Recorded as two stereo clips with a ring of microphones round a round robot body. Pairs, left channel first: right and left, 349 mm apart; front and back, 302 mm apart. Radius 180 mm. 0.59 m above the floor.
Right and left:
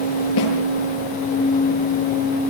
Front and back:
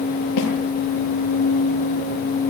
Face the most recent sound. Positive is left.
turn(degrees=-40)